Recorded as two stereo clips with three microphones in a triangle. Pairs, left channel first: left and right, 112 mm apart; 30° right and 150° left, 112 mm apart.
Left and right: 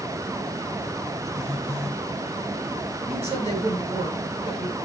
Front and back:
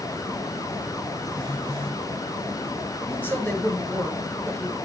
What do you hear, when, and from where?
1.3 s a phone buzzing: 110° right, 7 m
3.1 s a woman speaking: 105° right, 7.5 m